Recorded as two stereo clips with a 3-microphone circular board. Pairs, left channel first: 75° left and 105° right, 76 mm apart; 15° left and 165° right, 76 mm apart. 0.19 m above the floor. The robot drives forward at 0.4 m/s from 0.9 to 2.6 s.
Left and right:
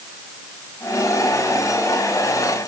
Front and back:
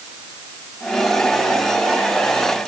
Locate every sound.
Only background noise.